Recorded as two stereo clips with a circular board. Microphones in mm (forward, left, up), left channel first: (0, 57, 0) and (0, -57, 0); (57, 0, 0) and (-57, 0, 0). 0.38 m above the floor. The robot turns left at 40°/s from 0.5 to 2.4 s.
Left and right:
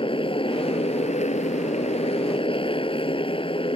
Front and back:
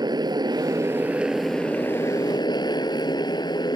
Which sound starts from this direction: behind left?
A motorcycle, at 0.0 s.